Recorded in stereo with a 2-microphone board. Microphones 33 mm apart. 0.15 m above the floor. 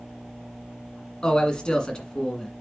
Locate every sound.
1.2 s a man speaking: 25° left (ahead or behind), 1.7 m